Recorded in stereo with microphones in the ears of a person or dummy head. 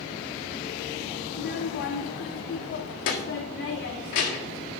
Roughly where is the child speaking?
Left.